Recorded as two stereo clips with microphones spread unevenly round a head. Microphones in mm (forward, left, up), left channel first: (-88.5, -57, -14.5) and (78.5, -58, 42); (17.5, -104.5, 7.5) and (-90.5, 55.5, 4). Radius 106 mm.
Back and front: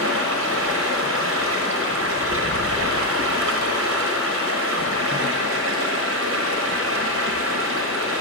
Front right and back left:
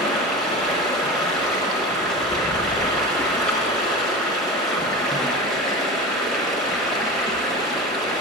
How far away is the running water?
About 1.0 m.